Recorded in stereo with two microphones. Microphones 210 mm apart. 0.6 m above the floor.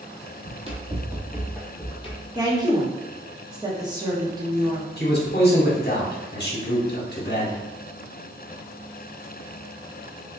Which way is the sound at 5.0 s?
50° left (ahead or behind).